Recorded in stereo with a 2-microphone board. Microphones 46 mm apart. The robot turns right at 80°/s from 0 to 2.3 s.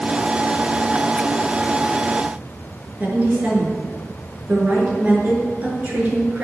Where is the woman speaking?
40° right (ahead or behind), 5 m.